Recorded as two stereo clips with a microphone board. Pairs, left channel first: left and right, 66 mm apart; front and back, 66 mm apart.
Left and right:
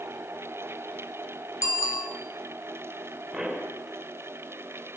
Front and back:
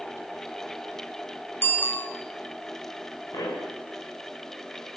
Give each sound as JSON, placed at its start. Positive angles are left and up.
{"t": 1.6, "sound": "a bicycle bell", "azimuth_deg": 55, "distance_m": 3.5}
{"t": 3.3, "sound": "a pop", "azimuth_deg": -5, "distance_m": 5.5}